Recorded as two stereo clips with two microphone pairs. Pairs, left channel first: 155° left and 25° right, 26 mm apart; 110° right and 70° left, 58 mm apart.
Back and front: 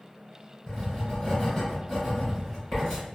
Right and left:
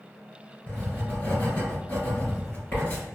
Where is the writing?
125° right, 1.6 m.